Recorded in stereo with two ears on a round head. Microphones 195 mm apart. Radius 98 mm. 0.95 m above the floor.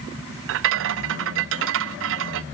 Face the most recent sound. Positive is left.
turn(degrees=-60)  # may be behind; listen again after turning